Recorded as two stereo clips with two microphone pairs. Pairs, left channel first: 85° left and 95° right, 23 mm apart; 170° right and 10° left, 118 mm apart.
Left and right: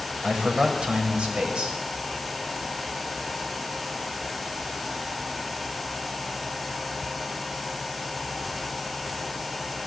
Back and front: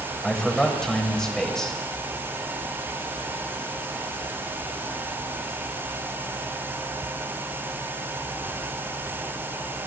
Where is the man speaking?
85° right, 2.5 m.